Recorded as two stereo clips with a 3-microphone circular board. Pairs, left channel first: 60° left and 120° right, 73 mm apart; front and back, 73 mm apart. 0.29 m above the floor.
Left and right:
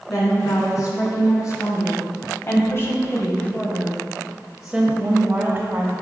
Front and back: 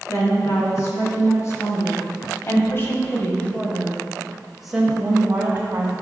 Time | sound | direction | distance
0.1 | a woman speaking | 35° left | 3 m